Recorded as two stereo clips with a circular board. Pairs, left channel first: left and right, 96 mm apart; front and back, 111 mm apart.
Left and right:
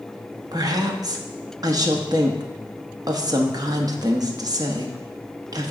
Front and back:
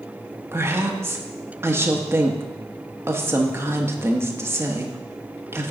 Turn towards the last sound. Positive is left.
turn(degrees=-120)